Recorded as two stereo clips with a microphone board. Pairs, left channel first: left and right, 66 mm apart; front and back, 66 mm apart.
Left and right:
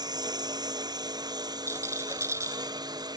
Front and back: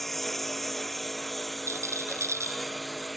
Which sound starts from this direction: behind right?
A rattle, at 1.7 s.